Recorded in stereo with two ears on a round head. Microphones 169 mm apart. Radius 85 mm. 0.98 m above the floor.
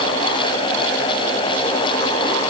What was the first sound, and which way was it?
Only background noise.